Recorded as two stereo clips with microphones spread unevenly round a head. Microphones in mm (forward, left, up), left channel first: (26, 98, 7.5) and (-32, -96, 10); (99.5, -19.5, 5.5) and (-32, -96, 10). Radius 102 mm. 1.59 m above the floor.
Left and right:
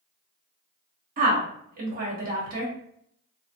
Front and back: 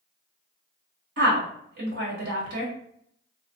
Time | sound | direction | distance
1.2 | a woman speaking | 160° right | 1.3 m